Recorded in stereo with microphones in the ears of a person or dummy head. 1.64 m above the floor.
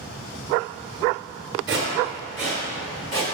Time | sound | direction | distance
1.7 | footsteps | 10° right (ahead or behind) | 1.6 m